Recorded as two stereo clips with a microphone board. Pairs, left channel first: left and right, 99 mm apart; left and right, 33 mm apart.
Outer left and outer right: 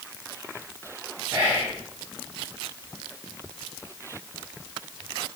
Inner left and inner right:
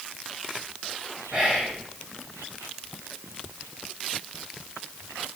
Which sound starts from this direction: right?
Whispering, at 1.3 s.